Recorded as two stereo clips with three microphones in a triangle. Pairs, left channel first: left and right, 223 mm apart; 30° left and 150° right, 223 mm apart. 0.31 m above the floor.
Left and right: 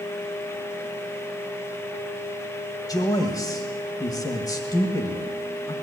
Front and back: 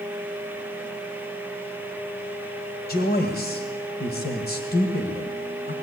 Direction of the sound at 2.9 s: 25° left.